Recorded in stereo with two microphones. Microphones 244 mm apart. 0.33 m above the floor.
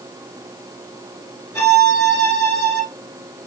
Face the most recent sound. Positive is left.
turn(degrees=10)  # may be behind; listen again after turning